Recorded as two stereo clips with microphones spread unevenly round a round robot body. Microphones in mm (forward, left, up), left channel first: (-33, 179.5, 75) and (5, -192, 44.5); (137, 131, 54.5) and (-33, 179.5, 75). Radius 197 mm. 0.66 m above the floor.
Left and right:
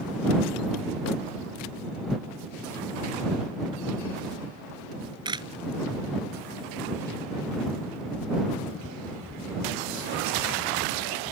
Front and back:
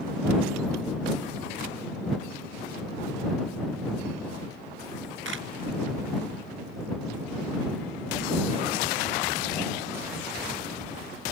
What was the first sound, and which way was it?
A camera shutter, 165° right.